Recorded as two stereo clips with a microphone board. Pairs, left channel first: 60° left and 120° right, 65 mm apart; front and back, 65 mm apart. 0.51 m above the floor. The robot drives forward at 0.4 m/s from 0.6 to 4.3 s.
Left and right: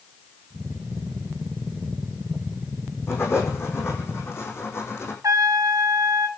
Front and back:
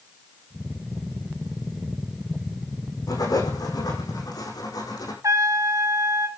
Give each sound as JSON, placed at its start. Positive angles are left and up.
{"t": 3.1, "sound": "writing", "azimuth_deg": 10, "distance_m": 6.0}
{"t": 5.2, "sound": "a trumpet", "azimuth_deg": -150, "distance_m": 1.1}